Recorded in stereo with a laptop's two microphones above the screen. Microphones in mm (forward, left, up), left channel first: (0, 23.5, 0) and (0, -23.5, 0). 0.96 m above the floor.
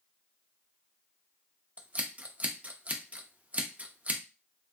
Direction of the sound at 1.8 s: 30° right (ahead or behind).